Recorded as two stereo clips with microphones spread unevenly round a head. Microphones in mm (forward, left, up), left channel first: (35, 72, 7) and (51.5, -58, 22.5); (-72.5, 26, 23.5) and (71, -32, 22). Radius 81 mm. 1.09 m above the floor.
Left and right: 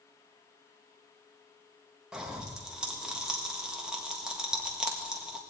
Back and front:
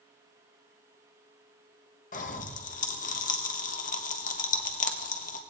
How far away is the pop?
About 1.4 m.